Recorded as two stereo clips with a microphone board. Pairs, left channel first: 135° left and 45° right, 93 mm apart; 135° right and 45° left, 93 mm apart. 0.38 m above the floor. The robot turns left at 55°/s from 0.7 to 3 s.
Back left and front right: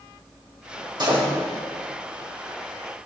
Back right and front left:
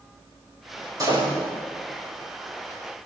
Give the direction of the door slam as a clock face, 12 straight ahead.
12 o'clock.